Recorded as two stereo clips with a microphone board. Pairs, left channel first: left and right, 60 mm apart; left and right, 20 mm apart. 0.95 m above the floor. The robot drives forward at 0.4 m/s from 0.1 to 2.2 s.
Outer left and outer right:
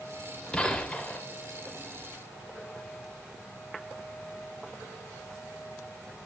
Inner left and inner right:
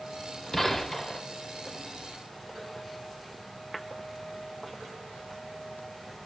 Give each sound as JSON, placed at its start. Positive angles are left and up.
{"t": 0.5, "sound": "a gunshot", "side_deg": 20, "distance_m": 1.1}